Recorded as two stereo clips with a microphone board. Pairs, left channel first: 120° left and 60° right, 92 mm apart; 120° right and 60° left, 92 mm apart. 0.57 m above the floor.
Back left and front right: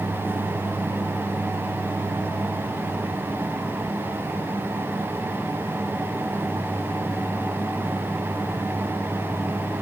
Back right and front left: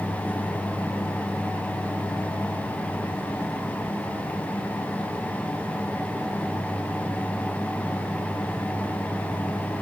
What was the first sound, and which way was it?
Only background noise.